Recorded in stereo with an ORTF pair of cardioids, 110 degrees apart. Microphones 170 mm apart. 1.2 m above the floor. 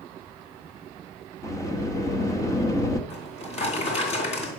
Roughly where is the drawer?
Ahead left.